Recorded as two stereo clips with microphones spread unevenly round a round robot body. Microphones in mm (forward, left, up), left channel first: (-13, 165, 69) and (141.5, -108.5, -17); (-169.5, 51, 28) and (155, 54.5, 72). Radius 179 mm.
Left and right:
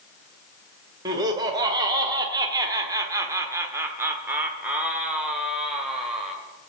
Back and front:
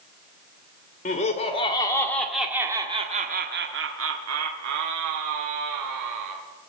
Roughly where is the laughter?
Behind right.